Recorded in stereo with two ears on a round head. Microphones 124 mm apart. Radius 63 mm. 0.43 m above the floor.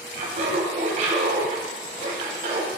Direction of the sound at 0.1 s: 55° right (ahead or behind).